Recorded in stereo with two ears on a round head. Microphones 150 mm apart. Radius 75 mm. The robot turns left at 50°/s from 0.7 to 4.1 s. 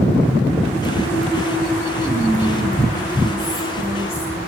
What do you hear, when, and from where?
2.0 s whispering: 150° right, 4.5 m; by 4.4 s 105° left, 4.5 m